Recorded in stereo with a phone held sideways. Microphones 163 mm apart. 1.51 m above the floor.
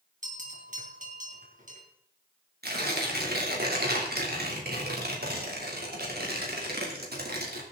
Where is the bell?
50° right (ahead or behind), 3.5 m.